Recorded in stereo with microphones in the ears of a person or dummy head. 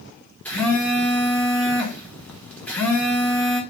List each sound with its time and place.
0.5 s a phone buzzing: 5° left (ahead or behind), 0.9 m